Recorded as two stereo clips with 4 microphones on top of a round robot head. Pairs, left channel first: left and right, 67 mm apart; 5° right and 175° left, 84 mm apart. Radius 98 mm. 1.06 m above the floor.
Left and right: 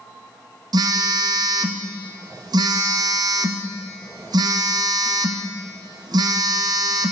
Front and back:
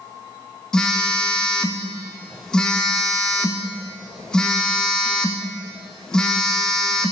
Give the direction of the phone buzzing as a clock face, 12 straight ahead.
3 o'clock.